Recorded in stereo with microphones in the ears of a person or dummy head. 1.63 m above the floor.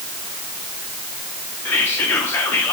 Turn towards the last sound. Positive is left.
turn(degrees=10)  # may be behind; listen again after turning